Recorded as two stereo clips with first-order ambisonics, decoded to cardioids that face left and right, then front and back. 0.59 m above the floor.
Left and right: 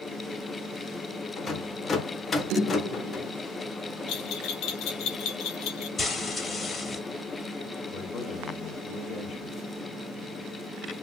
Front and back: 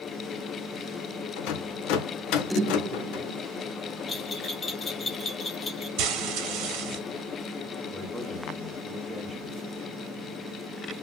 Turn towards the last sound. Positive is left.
turn(degrees=60)